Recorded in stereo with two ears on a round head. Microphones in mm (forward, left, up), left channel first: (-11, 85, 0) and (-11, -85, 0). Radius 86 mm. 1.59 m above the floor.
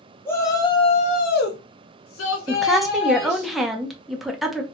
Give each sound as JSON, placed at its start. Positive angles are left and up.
{"t": 0.2, "sound": "a shout", "side_deg": 10, "distance_m": 0.9}
{"t": 2.5, "sound": "a woman speaking", "side_deg": 0, "distance_m": 0.6}